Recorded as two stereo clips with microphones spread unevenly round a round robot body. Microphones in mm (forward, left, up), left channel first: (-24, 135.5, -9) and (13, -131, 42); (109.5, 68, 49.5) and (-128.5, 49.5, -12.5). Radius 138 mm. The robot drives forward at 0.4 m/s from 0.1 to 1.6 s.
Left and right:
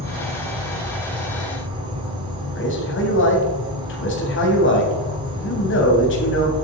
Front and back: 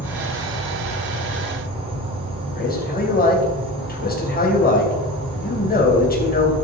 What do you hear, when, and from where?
0.0 s an insect: 145° right, 2 m; by 6.7 s 160° right, 2.5 m
2.5 s a man speaking: 60° left, 3 m